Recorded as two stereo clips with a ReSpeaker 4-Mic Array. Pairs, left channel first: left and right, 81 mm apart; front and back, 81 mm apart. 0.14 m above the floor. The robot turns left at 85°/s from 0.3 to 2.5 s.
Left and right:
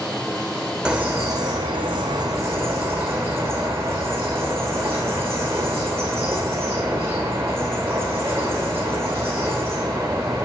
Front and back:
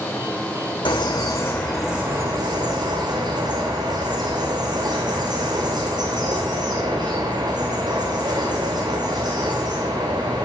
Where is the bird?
10° right, 2.5 m; by 10.4 s 150° right, 2.5 m.